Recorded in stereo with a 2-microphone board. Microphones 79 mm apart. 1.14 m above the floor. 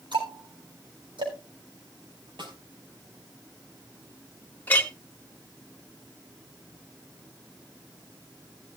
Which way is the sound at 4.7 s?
20° left (ahead or behind).